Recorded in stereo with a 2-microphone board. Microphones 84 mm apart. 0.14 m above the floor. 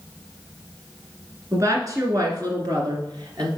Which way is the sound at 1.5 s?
40° right (ahead or behind).